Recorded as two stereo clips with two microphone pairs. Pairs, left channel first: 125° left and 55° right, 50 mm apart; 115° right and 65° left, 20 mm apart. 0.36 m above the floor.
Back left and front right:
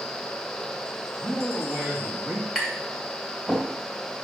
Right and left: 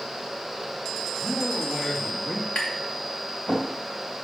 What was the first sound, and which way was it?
A man speaking, 70° right.